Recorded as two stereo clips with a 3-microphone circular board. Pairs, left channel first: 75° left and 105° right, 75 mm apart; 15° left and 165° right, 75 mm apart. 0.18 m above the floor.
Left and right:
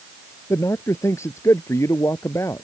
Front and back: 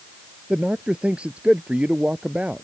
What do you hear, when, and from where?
0.5 s a man speaking: 120° left